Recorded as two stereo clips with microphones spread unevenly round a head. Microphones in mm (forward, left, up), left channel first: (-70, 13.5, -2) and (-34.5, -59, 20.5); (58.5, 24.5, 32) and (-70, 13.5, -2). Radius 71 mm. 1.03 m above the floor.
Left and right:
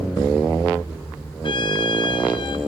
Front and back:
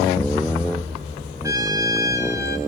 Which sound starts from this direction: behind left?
A trumpet, at 1.4 s.